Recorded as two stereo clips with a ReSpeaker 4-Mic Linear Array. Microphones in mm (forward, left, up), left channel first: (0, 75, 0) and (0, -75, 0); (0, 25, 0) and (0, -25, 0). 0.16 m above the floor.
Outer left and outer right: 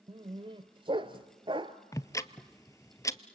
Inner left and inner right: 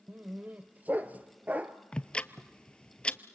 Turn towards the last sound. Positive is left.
turn(degrees=20)  # may be behind; listen again after turning